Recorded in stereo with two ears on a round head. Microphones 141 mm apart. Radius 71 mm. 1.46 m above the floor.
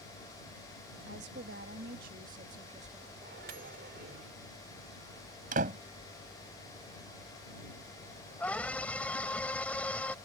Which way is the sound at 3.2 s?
60° right (ahead or behind).